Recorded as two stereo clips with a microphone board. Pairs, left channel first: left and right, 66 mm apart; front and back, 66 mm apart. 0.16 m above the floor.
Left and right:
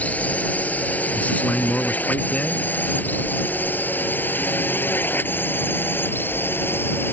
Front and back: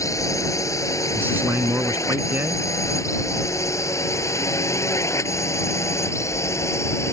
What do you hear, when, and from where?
0.0 s a drone: 25° left; by 7.1 s 35° left
1.1 s a man speaking: 145° left